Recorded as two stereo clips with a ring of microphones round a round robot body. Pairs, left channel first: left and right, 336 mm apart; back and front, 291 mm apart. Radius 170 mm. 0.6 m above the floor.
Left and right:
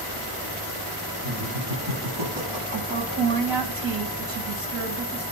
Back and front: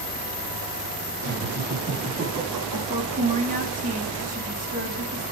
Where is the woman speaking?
65° right, 3.5 m.